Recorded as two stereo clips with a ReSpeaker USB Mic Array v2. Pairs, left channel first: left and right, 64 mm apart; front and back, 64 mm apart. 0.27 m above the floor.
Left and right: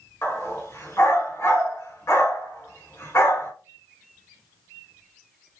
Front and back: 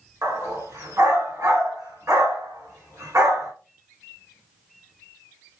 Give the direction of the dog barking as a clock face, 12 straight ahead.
7 o'clock.